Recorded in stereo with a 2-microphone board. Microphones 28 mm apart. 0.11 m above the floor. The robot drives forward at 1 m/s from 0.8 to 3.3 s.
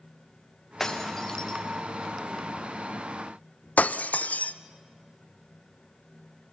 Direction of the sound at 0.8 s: 15° left (ahead or behind).